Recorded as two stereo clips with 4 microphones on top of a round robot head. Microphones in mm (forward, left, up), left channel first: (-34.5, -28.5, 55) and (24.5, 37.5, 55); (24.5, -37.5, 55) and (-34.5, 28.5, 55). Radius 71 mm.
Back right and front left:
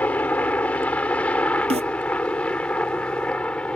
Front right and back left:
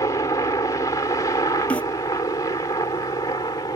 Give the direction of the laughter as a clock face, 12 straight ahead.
No laughter in this recording.